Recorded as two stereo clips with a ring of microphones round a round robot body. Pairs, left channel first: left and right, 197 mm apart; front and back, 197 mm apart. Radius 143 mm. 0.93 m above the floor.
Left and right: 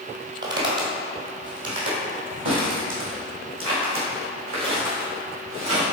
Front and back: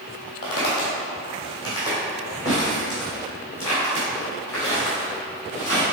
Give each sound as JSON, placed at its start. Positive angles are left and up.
{"t": 0.4, "sound": "footsteps", "azimuth_deg": -70, "distance_m": 1.9}